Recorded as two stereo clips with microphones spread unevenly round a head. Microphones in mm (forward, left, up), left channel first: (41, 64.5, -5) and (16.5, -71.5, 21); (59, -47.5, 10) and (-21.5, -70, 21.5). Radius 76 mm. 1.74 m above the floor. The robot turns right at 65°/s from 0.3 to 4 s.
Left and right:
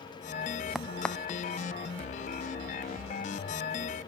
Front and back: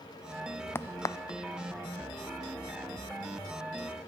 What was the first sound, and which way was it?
A crack, 30° right.